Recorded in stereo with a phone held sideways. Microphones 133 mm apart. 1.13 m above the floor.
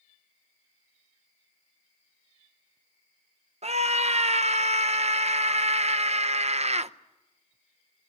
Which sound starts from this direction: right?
A scream, at 3.6 s.